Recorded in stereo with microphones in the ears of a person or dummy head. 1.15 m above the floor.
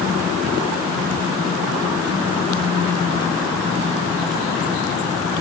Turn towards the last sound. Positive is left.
No sound to turn to.